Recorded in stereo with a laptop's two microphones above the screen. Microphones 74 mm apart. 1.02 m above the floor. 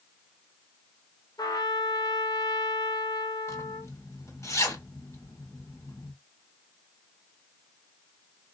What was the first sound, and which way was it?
A trumpet, 60° left (ahead or behind).